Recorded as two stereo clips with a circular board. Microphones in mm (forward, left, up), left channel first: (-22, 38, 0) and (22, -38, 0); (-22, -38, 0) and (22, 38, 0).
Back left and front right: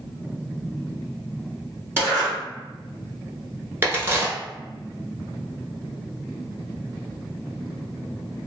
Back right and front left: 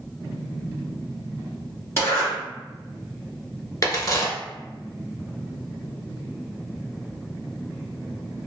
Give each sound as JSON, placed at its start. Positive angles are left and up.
{"t": 2.0, "sound": "a zipper", "azimuth_deg": -95, "distance_m": 1.6}
{"t": 3.8, "sound": "a crack", "azimuth_deg": -105, "distance_m": 0.8}